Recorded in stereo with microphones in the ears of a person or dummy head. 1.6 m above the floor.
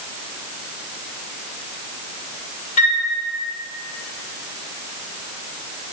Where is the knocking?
No knocking in this recording.